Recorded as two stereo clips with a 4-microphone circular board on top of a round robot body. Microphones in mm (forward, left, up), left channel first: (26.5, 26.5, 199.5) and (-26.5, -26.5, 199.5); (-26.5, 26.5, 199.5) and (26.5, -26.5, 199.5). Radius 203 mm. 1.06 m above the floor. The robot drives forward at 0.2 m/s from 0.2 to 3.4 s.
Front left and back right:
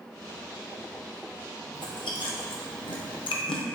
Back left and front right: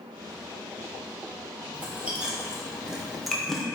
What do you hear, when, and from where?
1.7 s chewing: 25° left, 0.7 m; by 3.6 s 45° left, 0.5 m